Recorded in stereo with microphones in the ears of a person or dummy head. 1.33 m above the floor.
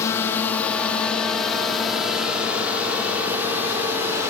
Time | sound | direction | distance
0.0 | a drone | 20° left (ahead or behind) | ?